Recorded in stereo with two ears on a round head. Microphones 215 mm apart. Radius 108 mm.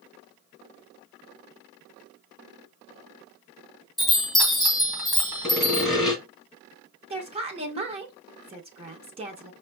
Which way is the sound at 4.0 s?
Centre (ahead or behind).